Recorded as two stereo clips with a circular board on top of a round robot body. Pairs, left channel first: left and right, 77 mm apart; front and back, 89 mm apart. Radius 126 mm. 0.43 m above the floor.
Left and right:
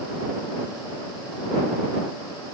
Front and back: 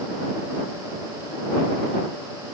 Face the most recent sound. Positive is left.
No sound to turn to.